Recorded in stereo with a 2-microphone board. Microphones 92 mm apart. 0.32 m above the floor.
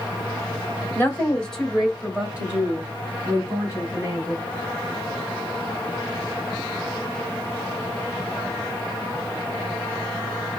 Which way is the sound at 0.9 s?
20° left (ahead or behind).